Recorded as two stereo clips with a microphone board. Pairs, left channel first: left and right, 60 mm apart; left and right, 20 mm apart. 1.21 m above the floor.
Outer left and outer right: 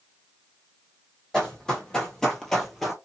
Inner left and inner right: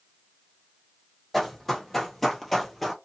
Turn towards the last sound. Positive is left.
turn(degrees=5)  # may be behind; listen again after turning